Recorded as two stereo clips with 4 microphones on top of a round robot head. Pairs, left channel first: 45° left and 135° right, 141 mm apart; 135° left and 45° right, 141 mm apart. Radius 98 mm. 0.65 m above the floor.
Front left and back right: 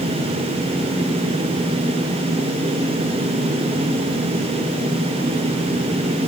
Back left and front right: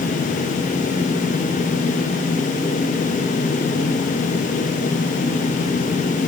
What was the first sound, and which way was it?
Only background noise.